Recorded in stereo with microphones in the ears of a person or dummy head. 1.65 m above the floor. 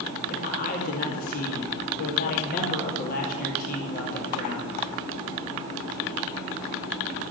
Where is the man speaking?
45° left (ahead or behind), 2.5 m.